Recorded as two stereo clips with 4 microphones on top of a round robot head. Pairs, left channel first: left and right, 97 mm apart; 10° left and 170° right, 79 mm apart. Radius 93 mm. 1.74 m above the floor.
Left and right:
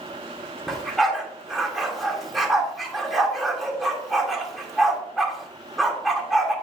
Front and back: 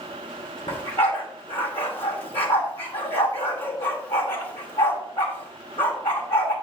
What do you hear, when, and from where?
0.7 s a dog barking: straight ahead, 1.5 m